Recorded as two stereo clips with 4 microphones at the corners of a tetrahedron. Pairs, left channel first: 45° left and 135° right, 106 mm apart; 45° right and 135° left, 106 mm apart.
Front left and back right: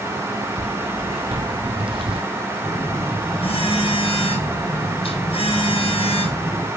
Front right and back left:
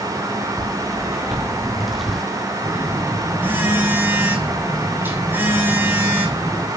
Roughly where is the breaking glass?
No breaking glass in this recording.